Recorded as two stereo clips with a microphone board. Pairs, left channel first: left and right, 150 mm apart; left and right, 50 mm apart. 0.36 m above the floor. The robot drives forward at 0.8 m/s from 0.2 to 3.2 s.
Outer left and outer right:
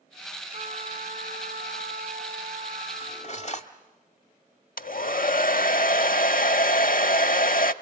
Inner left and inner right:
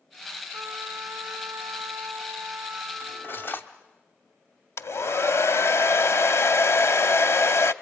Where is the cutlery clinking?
45° left (ahead or behind), 1.1 m; by 3.7 s 50° left (ahead or behind), 1.0 m.